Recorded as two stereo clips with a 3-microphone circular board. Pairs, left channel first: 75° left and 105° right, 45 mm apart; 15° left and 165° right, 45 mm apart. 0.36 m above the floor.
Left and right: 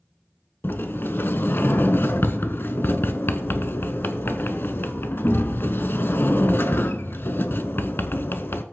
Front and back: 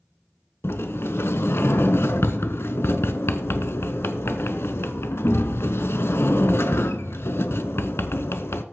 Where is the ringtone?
No ringtone in this recording.